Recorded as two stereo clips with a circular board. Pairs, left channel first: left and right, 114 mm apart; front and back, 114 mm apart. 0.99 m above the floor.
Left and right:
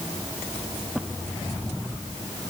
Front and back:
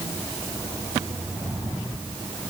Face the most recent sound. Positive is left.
No sound to turn to.